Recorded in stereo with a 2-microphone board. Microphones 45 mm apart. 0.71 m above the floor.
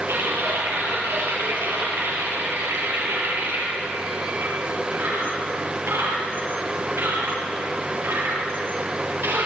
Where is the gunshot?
I don't hear a gunshot.